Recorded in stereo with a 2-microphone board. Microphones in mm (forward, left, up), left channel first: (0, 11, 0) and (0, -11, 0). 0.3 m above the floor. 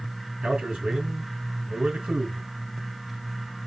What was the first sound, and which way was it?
A man speaking, 70° right (ahead or behind).